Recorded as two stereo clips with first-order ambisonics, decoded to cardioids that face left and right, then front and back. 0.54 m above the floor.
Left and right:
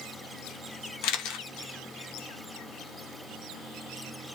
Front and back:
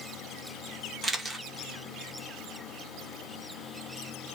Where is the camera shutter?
100° left, 0.5 m.